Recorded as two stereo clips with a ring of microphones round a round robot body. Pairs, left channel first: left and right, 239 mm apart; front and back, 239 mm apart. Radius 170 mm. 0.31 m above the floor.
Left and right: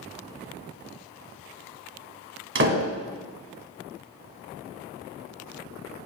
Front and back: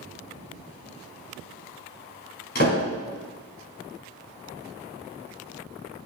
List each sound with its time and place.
2.5 s a door slam: 60° right, 2 m